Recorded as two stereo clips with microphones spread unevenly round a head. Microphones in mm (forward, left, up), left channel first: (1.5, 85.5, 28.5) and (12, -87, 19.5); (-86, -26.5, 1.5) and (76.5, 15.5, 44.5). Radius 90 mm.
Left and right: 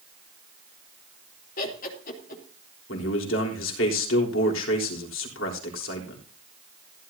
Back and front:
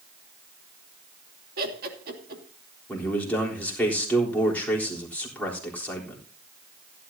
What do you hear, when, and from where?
1.6 s laughter: 50° left, 3 m
2.9 s a man speaking: 110° left, 3.5 m